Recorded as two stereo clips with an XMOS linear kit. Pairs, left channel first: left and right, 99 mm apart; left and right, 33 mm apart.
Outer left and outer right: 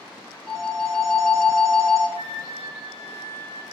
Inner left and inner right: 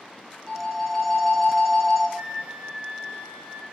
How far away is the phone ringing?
About 0.6 m.